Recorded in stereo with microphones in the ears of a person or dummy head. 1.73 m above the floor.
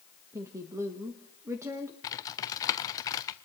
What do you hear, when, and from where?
0.3 s a woman speaking: 10° right (ahead or behind), 1.6 m
2.0 s typing on a keyboard: 25° left (ahead or behind), 0.7 m